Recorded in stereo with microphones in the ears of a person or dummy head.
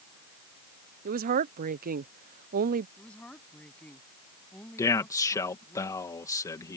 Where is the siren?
No siren in this recording.